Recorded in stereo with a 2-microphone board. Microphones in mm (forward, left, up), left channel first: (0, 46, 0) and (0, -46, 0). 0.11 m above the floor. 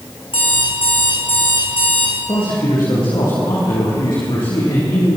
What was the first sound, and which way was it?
An alarm clock, 75° left (ahead or behind).